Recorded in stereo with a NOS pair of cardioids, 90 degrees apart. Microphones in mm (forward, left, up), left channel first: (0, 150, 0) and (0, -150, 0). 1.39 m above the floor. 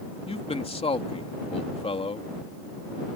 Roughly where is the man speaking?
Ahead.